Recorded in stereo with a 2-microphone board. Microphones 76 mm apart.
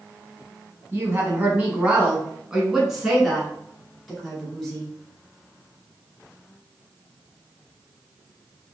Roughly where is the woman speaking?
Right.